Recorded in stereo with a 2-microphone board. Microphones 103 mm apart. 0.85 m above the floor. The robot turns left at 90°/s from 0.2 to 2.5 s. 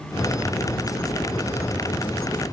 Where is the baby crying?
I don't hear a baby crying.